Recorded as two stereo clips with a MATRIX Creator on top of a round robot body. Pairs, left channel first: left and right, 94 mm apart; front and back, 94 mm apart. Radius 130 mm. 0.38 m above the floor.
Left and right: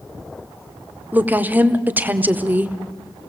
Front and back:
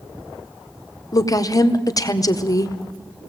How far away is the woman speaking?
About 1.8 m.